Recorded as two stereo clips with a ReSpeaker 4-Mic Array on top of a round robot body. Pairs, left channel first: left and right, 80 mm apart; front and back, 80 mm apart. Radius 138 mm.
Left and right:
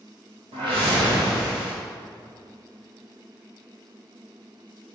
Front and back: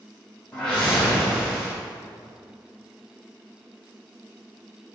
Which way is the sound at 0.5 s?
80° right.